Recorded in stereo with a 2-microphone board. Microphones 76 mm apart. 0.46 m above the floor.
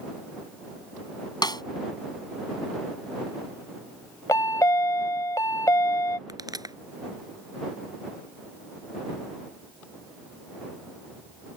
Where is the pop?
60° right (ahead or behind).